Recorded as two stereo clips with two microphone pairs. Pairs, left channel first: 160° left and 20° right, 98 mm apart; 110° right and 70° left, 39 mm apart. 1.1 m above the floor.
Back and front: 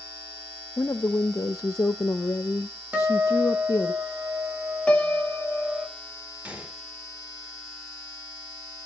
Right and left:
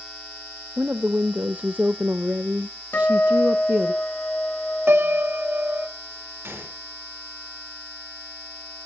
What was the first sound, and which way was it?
A woman speaking, 105° left.